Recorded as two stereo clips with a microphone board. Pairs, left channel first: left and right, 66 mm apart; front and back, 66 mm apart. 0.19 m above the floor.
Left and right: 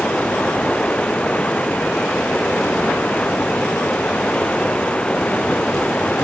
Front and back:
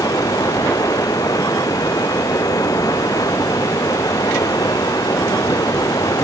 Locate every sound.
0.0 s running water: 15° left